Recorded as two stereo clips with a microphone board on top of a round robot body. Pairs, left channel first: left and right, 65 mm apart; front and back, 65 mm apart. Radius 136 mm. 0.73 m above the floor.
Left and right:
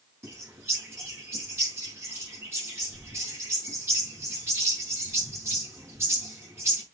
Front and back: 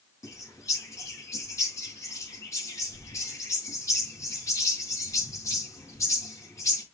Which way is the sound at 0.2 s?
40° right.